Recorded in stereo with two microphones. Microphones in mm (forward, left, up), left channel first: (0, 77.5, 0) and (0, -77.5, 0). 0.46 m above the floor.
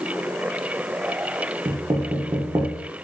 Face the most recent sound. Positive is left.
turn(degrees=-30)  # may be behind; listen again after turning